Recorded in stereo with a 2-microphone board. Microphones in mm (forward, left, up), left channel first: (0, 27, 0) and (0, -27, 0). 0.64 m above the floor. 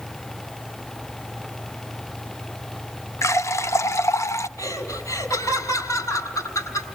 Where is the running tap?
65° left (ahead or behind), 0.7 m.